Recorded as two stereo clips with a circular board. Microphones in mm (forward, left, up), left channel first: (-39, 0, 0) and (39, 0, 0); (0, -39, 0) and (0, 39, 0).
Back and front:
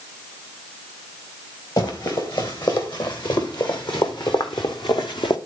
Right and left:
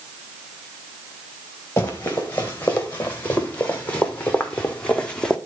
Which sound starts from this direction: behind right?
Running footsteps, at 1.8 s.